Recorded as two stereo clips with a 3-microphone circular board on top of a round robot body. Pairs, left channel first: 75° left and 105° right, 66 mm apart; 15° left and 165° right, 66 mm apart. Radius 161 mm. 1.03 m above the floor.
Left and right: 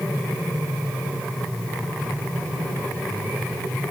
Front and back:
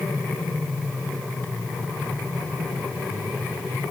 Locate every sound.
Only background noise.